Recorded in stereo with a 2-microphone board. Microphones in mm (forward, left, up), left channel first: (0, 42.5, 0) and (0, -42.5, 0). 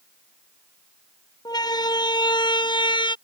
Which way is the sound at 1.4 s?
55° left (ahead or behind).